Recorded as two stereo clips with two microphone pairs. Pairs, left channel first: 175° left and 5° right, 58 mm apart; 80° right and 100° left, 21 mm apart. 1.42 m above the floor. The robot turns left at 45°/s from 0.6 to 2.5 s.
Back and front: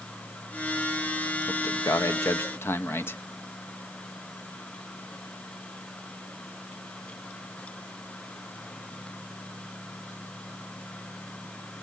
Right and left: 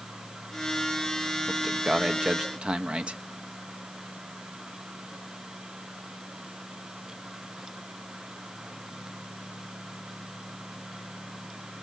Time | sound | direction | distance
1.5 | a man speaking | 175° left | 1.1 m